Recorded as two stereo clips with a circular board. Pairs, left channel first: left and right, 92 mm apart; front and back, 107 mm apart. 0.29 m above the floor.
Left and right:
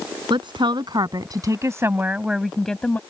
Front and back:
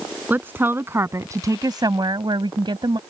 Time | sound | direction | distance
0.3 | a woman speaking | 110° right | ?